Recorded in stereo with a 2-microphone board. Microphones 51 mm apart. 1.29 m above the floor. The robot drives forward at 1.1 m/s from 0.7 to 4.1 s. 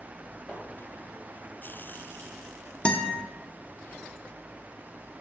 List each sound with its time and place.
0.5 s a splash: 20° left (ahead or behind), 5 m
2.9 s a guitar: 25° left (ahead or behind), 0.9 m